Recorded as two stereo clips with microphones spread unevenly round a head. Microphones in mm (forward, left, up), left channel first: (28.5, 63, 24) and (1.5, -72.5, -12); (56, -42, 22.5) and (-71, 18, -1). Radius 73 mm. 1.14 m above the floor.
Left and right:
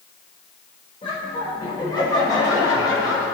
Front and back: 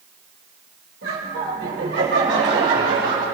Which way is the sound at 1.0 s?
140° left.